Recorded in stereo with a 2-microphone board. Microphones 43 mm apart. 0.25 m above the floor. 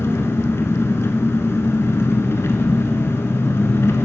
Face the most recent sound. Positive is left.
turn(degrees=70)  # may be behind; listen again after turning